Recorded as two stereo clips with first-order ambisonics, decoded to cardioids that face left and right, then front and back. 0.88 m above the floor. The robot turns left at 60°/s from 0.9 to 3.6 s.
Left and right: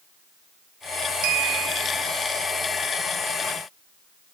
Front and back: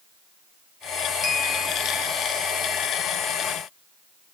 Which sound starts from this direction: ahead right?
A clink, at 1.2 s.